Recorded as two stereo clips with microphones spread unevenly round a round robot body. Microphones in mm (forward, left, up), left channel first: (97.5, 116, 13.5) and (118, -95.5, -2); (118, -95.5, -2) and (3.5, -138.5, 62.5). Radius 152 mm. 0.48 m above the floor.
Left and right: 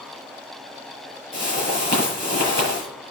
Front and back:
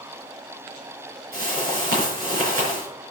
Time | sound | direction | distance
1.3 | a whoosh | 170° left | 5.5 m